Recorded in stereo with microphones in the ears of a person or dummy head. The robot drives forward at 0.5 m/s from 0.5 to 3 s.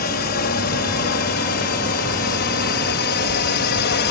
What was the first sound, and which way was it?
A drone, 50° left (ahead or behind).